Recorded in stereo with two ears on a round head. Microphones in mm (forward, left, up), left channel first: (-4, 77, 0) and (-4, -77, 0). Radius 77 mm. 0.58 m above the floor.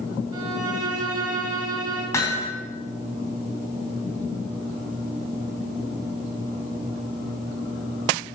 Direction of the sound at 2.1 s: 15° left (ahead or behind).